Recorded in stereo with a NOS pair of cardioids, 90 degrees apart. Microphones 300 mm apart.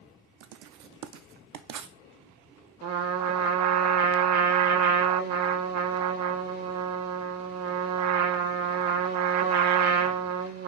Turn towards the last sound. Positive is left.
turn(degrees=-55)